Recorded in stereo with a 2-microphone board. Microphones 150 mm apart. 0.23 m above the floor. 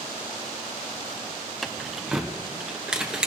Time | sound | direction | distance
1.6 | keys jangling | centre (ahead or behind) | 0.9 m